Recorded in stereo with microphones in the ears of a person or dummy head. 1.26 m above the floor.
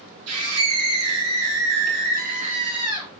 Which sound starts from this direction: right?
A scream, at 0.3 s.